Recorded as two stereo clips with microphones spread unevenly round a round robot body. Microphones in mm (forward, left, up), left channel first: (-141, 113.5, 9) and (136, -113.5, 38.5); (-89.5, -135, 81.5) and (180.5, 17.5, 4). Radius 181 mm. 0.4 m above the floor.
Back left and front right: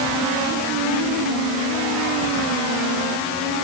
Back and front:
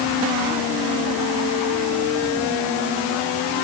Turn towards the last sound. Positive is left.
No sound to turn to.